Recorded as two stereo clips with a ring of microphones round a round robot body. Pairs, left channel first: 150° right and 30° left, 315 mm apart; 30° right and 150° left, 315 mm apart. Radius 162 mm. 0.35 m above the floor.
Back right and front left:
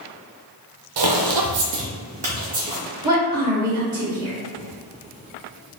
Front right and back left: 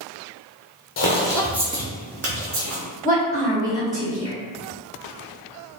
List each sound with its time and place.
1.0 s footsteps: 30° left, 0.6 m; by 2.8 s 110° left, 1.0 m
3.0 s a woman speaking: 100° left, 1.6 m